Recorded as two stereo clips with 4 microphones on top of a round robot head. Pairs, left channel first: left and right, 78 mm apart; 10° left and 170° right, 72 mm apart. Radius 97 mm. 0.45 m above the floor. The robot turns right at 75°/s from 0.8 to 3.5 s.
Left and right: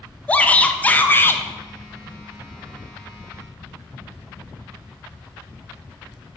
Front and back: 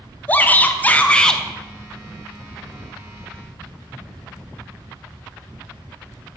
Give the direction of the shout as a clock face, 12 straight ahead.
11 o'clock.